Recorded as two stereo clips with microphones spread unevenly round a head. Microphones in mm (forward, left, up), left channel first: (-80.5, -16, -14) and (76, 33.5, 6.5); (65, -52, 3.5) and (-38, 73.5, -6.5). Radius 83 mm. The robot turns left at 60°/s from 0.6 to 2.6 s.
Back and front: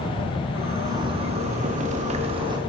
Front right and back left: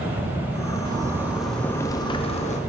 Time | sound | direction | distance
0.8 | a zipper | 75° left | 0.7 m